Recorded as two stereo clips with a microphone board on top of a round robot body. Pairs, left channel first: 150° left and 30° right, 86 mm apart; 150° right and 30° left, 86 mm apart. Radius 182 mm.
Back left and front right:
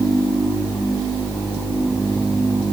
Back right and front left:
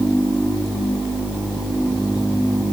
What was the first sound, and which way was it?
Only background noise.